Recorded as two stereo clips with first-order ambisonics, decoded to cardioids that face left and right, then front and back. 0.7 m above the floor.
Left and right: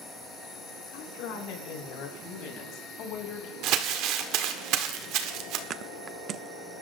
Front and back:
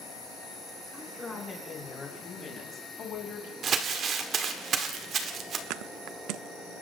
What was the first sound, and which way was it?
A woman speaking, 85° left.